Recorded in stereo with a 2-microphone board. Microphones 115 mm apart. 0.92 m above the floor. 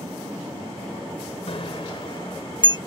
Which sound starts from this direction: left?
A bicycle bell, at 1.5 s.